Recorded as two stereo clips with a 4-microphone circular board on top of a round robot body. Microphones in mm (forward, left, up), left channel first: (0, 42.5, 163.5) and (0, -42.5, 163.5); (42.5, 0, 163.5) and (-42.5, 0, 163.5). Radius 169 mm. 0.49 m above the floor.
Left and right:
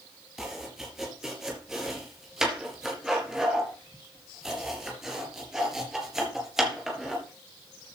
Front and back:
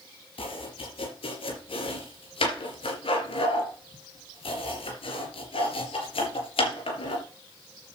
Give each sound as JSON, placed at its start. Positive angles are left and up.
{"t": 0.4, "sound": "chopping", "azimuth_deg": -5, "distance_m": 3.5}